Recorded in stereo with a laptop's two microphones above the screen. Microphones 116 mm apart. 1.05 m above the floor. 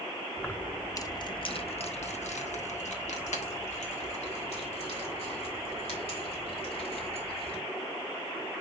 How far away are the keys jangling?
About 1.0 m.